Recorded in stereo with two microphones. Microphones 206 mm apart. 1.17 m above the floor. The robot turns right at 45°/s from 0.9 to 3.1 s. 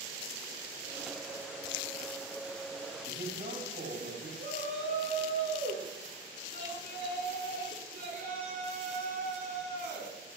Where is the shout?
45° right (ahead or behind), 10 m.